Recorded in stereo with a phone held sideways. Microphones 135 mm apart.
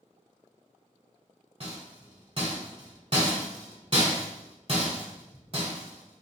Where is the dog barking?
I don't hear a dog barking.